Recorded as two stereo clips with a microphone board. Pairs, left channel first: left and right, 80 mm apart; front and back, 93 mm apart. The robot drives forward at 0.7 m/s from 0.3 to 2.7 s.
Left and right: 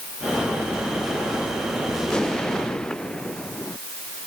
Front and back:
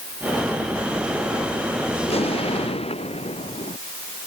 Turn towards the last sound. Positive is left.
turn(degrees=10)